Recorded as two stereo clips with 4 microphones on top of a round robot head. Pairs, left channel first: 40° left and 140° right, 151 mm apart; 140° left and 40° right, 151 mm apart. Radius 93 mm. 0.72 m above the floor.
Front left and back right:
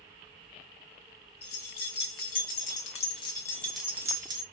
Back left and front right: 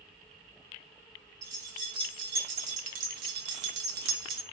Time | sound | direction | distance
1.4 | keys jangling | 25° left | 1.5 m